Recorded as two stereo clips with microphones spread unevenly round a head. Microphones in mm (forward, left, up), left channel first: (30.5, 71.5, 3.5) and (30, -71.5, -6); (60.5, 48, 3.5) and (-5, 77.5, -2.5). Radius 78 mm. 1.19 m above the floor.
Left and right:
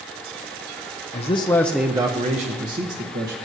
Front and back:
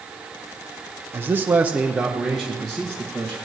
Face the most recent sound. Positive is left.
turn(degrees=-100)